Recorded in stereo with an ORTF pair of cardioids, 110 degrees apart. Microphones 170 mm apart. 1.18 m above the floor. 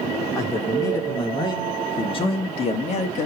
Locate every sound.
0.3 s a man speaking: 20° left, 3.5 m; by 3.3 s 45° left, 2 m